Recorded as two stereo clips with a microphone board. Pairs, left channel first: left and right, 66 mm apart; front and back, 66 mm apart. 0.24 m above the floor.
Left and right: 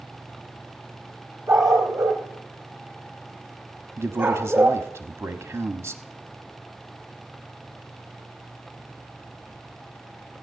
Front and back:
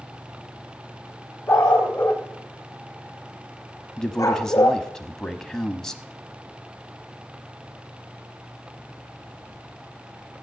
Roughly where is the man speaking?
Right.